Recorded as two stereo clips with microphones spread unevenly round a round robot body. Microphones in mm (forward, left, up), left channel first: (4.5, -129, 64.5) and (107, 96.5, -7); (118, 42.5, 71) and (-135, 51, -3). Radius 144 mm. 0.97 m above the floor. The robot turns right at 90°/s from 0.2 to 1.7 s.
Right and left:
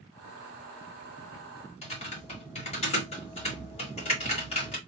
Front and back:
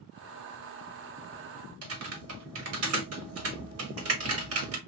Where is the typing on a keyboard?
170° left, 1.7 m.